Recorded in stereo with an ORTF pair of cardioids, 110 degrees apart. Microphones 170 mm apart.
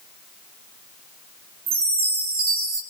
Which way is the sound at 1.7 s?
60° right.